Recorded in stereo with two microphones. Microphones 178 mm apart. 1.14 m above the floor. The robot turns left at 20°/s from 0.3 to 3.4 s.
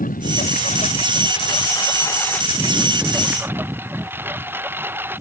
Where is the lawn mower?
50° left; by 5.2 s 10° right.